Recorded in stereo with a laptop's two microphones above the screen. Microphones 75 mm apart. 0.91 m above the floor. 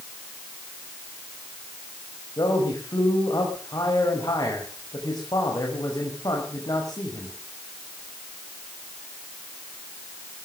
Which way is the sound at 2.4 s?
55° left (ahead or behind).